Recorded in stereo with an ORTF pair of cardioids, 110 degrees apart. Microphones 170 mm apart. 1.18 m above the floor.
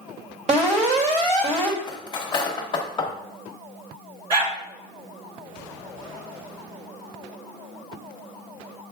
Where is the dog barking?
35° right, 2.0 m.